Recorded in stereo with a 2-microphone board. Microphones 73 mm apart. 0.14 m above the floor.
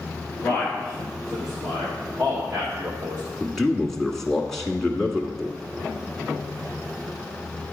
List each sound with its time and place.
0.4 s a man speaking: 25° left (ahead or behind), 2 m; by 3.2 s 40° right (ahead or behind), 4 m
3.4 s a man speaking: 5° left (ahead or behind), 1.1 m